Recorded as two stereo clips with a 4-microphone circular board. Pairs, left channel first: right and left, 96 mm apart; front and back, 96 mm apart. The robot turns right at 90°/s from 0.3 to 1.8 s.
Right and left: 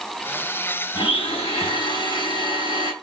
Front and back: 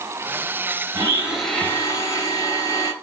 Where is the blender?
130° right, 4 m; by 2.9 s 55° right, 4 m.